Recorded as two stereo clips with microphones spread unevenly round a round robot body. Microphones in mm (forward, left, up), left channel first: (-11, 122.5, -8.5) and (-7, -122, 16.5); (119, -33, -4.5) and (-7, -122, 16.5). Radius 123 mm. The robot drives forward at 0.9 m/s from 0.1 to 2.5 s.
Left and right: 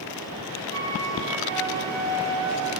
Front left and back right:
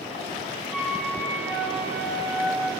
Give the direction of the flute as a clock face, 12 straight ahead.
2 o'clock.